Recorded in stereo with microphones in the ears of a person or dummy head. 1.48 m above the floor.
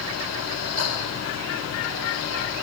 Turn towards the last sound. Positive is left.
turn(degrees=75)  # may be behind; listen again after turning